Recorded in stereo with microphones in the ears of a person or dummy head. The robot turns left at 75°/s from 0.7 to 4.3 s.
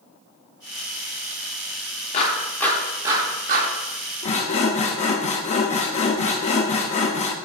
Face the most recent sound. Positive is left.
turn(degrees=40)  # may be behind; listen again after turning